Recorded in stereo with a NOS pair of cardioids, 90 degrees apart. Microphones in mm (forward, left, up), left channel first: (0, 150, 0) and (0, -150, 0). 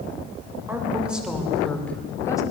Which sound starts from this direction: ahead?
A woman speaking, at 0.7 s.